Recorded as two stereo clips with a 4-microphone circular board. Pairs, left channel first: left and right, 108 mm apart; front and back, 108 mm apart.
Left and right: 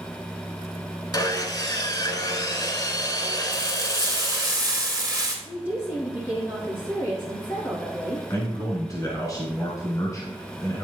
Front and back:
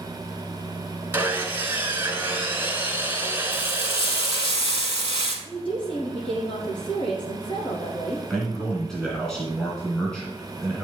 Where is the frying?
35° right, 3 m.